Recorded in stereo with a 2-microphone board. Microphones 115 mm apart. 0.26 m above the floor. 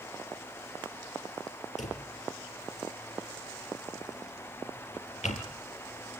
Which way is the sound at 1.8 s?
80° left.